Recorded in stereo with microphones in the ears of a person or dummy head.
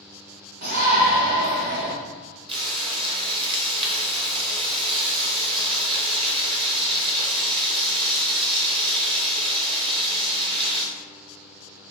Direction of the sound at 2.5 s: 30° right (ahead or behind).